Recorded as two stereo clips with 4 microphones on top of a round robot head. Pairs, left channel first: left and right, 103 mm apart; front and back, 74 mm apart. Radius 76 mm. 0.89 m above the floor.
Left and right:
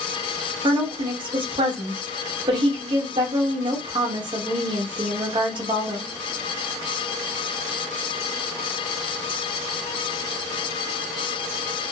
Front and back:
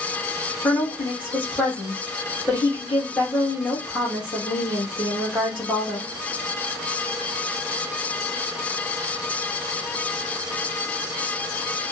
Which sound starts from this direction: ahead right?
A woman speaking, at 0.6 s.